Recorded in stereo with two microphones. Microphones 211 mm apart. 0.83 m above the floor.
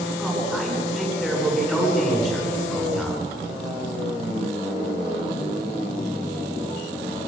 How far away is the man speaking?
About 9 m.